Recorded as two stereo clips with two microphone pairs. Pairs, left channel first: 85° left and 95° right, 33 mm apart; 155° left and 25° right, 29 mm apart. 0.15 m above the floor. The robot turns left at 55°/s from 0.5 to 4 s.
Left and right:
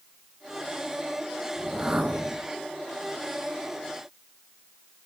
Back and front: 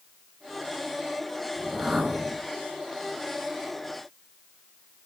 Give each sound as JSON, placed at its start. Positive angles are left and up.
{"t": 1.6, "sound": "a whoosh", "azimuth_deg": -40, "distance_m": 1.8}